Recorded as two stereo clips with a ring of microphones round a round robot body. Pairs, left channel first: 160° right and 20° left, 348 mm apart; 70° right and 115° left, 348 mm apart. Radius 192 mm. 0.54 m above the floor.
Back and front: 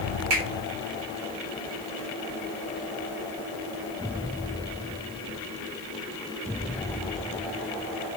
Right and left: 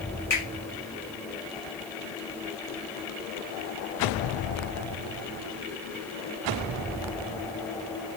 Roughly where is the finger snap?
Ahead.